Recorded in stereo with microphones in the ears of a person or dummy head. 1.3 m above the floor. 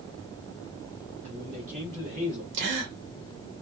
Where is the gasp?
65° right (ahead or behind), 1.0 m.